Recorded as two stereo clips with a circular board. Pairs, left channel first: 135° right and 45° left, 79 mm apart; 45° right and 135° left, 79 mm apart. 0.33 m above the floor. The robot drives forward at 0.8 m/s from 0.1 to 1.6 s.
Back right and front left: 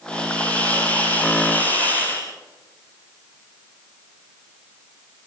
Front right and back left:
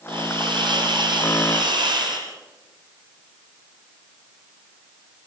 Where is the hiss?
150° left, 4.5 m; by 2.3 s 155° left, 5.5 m.